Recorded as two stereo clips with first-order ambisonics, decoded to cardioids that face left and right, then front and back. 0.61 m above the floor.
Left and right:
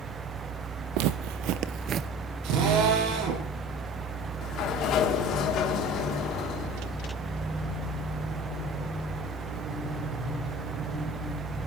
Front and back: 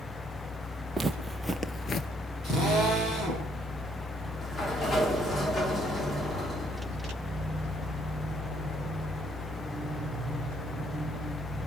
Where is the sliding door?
65° left, 1.6 m.